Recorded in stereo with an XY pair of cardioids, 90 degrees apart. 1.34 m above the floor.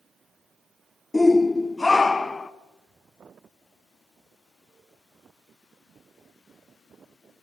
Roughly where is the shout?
Ahead.